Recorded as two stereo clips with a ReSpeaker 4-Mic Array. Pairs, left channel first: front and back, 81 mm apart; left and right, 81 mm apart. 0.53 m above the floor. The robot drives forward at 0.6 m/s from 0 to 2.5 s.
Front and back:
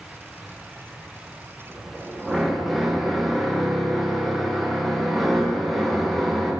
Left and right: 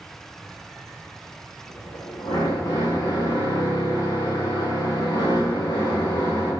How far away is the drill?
About 4.5 m.